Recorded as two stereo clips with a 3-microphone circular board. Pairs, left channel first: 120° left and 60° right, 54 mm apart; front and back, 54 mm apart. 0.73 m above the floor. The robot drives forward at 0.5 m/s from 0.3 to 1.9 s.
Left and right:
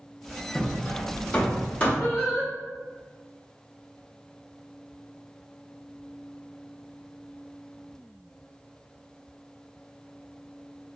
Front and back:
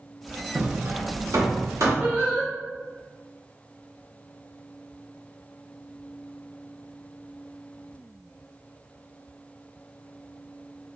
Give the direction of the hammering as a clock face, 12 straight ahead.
6 o'clock.